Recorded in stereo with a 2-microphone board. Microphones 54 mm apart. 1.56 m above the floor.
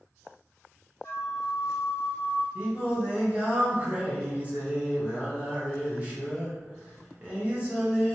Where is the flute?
40° left (ahead or behind), 0.8 m.